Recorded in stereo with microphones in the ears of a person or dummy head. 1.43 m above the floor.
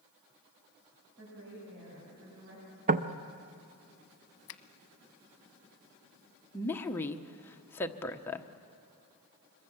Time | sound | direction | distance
1.2 | a woman speaking | 60° right (ahead or behind) | 8.5 m
2.9 | knocking | 35° right (ahead or behind) | 0.8 m
4.5 | a finger snap | 65° left (ahead or behind) | 0.9 m
6.5 | a woman speaking | 15° left (ahead or behind) | 1.1 m